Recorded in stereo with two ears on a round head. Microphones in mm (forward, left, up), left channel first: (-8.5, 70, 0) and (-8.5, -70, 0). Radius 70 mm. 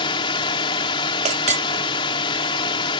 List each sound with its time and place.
0.0 s a drone: 30° left (ahead or behind)
1.2 s a clink: 50° right (ahead or behind)